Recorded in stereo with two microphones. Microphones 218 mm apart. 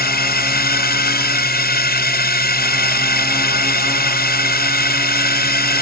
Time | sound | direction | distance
0.0 | a drone | 45° left (ahead or behind) | ?